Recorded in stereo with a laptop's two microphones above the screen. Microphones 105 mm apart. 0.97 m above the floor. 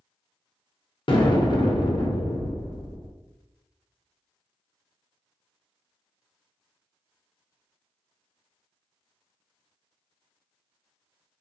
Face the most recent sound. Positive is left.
turn(degrees=50)  # may be behind; listen again after turning